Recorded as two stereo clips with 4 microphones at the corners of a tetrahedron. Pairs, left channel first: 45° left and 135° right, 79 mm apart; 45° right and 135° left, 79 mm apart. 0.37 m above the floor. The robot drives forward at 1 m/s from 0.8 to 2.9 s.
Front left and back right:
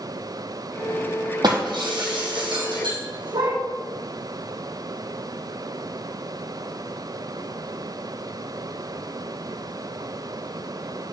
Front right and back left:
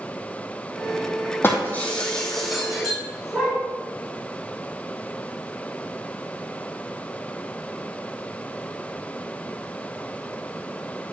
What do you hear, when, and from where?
1.4 s breaking glass: 105° right, 1.7 m; by 3.6 s 140° right, 2.5 m